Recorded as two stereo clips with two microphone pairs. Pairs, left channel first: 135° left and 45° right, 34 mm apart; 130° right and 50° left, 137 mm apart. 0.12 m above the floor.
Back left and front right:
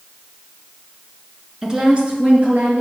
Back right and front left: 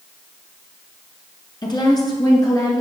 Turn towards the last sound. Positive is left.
turn(degrees=-65)